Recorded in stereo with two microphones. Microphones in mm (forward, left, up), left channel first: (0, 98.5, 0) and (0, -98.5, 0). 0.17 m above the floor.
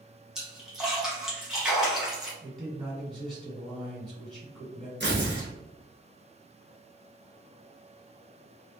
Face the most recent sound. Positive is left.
turn(degrees=-60)  # may be behind; listen again after turning